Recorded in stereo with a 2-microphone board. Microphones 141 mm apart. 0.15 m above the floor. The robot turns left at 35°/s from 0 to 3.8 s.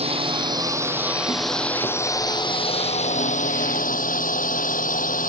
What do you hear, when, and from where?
0.0 s a drone: 45° right (ahead or behind); by 5.3 s 70° left (ahead or behind)